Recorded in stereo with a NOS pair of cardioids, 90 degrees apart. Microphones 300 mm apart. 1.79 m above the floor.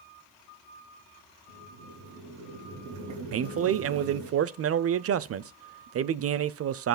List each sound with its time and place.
1.5 s boiling: 70° right, 3 m
3.3 s a man speaking: 50° right, 0.7 m